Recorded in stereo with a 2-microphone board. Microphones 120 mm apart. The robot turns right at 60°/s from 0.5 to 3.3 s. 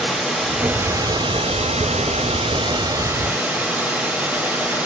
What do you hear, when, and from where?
0.0 s running water: straight behind, 1.1 m; by 4.9 s 10° right, 1.1 m